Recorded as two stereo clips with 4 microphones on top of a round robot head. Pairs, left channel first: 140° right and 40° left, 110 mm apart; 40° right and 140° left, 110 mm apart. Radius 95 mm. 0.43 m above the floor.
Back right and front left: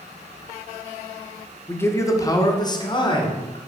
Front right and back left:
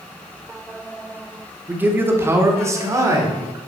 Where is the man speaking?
175° right, 1.0 m; by 3.6 s 165° right, 1.8 m.